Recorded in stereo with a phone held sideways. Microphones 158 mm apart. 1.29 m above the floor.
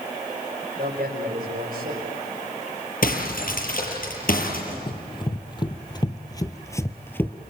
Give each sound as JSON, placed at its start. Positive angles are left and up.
{"t": 0.8, "sound": "a man speaking", "side_deg": -65, "distance_m": 5.0}
{"t": 3.0, "sound": "breaking glass", "side_deg": 65, "distance_m": 7.0}
{"t": 4.9, "sound": "running footsteps", "side_deg": 30, "distance_m": 2.0}